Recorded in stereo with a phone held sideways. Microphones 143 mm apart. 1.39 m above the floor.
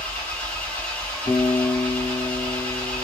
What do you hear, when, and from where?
0.0 s an engine running: 10° left (ahead or behind), 1.0 m
1.3 s a guitar: 75° left (ahead or behind), 1.3 m